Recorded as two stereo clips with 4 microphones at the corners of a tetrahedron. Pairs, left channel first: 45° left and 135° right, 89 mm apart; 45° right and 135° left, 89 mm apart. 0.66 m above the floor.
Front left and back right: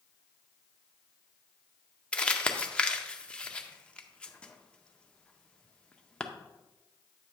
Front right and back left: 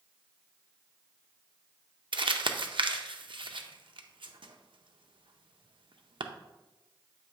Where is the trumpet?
I don't hear a trumpet.